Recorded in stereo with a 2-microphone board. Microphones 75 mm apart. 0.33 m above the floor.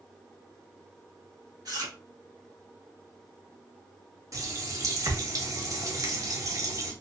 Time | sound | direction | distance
1.6 | chewing | 55° right (ahead or behind) | 1.4 m
4.3 | a running tap | 45° right (ahead or behind) | 0.8 m